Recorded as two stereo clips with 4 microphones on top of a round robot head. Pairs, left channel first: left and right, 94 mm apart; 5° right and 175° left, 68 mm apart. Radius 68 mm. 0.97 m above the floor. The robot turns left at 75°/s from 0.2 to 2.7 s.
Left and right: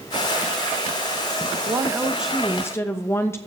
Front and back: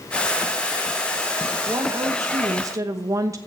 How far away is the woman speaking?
About 1.0 m.